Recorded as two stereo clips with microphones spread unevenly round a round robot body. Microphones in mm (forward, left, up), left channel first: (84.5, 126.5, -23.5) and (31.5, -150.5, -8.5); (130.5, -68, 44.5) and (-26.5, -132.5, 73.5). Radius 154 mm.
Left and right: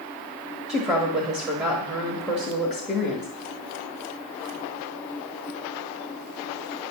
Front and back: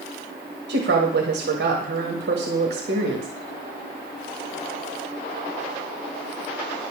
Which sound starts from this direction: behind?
A woman speaking, at 0.7 s.